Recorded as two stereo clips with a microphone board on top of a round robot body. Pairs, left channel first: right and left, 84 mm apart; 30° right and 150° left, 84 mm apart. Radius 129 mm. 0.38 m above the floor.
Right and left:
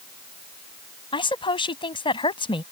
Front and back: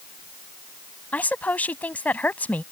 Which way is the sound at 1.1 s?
105° right.